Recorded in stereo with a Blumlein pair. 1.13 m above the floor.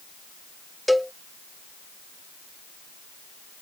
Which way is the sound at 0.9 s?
Straight ahead.